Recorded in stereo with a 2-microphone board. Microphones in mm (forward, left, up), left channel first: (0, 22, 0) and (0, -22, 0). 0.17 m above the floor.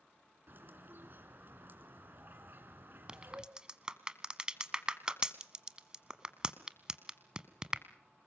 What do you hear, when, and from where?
0.5 s a bird: 50° right (ahead or behind), 2 m
3.1 s a crack: 20° right (ahead or behind), 1.2 m